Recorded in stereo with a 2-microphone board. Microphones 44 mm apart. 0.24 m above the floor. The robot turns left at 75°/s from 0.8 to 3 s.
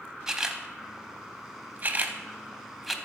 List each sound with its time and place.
0.3 s a camera shutter: 10° right (ahead or behind), 0.6 m; by 3.0 s centre (ahead or behind), 0.6 m